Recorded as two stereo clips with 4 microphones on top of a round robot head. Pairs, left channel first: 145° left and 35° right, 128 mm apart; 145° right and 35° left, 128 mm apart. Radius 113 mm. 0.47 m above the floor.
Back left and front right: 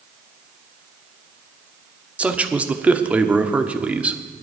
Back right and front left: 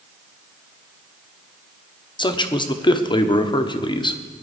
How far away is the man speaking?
About 1.3 m.